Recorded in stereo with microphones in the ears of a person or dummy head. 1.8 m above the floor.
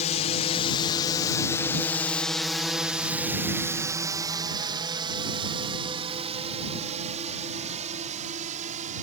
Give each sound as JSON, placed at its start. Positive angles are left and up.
{"t": 0.0, "sound": "a drone", "side_deg": 45}